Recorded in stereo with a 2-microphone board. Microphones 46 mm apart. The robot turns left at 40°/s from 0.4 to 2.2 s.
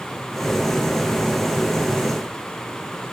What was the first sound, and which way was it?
Only background noise.